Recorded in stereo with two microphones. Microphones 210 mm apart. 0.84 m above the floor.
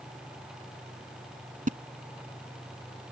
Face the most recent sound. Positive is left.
turn(degrees=-40)  # may be behind; listen again after turning